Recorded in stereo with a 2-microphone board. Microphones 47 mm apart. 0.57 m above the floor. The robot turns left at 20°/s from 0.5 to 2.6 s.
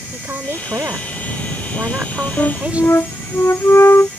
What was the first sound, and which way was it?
A woman speaking, 100° right.